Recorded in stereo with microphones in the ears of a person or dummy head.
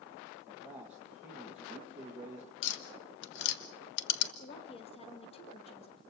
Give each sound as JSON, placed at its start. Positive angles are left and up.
{"t": 0.5, "sound": "a man speaking", "side_deg": -5, "distance_m": 2.5}
{"t": 2.6, "sound": "tapping", "side_deg": 65, "distance_m": 1.4}
{"t": 4.4, "sound": "a woman speaking", "side_deg": 30, "distance_m": 2.5}